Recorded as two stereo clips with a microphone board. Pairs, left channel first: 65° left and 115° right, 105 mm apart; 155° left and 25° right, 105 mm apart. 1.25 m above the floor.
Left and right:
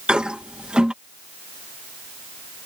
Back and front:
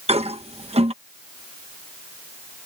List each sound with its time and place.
0.1 s a toilet flushing: 30° right